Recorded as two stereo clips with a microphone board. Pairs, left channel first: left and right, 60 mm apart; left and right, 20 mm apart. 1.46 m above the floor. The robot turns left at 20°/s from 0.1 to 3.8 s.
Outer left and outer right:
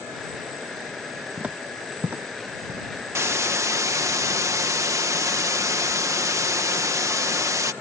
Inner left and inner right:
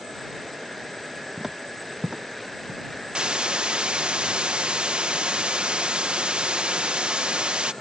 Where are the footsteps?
20° right (ahead or behind); by 2.9 s 40° right (ahead or behind).